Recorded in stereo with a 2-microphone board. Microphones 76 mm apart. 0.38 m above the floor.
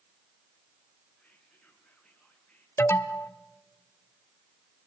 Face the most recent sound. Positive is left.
turn(degrees=35)  # may be behind; listen again after turning